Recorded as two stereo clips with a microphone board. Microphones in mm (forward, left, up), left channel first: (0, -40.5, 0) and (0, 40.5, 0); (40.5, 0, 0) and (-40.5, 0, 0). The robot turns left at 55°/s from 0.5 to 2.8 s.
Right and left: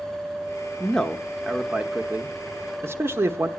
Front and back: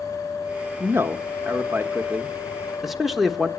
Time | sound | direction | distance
0.8 | a man speaking | 155° right | 0.7 m